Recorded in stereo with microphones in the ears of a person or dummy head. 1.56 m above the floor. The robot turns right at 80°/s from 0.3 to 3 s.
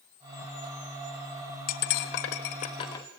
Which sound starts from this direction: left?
Cutlery clinking, at 1.7 s.